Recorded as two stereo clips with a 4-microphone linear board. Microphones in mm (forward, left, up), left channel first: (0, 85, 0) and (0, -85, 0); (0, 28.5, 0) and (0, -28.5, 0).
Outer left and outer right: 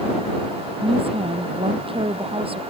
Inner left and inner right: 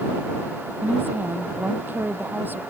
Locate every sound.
0.8 s a woman speaking: 35° right (ahead or behind)